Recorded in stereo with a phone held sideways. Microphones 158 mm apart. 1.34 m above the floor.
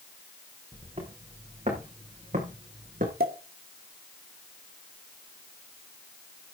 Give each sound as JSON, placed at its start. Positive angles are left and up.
{"t": 0.7, "sound": "footsteps", "side_deg": -35, "distance_m": 7.5}
{"t": 3.2, "sound": "a pop", "side_deg": -75, "distance_m": 2.5}